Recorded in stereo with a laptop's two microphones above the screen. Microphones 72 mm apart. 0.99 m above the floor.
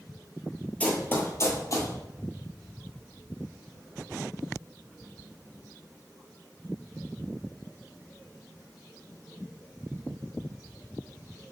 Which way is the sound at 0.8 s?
20° left (ahead or behind).